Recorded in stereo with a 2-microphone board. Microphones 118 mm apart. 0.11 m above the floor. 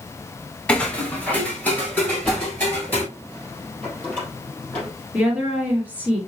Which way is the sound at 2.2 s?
10° left (ahead or behind).